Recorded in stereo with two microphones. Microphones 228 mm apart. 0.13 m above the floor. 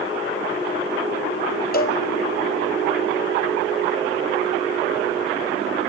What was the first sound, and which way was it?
A cowbell, 40° left (ahead or behind).